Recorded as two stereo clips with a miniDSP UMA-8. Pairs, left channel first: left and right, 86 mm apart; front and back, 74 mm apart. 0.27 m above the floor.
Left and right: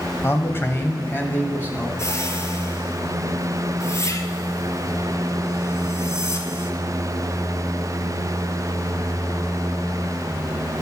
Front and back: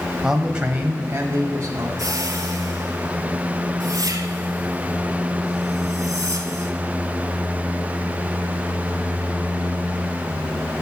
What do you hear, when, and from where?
0.2 s a man speaking: 105° left, 1.3 m; by 1.9 s 155° left, 1.7 m
2.0 s a whoosh: 145° left, 1.6 m